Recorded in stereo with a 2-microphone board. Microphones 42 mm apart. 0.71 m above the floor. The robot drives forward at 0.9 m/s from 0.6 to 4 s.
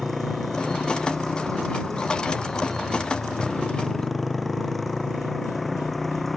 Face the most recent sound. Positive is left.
turn(degrees=0)  # may be behind; listen again after turning